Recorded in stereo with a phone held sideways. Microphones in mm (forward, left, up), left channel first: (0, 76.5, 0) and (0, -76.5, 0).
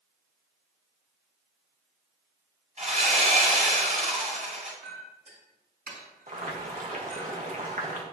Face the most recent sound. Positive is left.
turn(degrees=-55)  # may be behind; listen again after turning